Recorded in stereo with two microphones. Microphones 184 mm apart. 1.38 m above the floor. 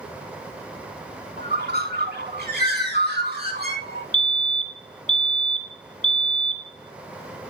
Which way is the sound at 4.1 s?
40° left (ahead or behind).